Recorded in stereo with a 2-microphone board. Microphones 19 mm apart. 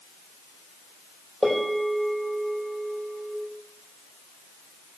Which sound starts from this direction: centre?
A bell, at 1.4 s.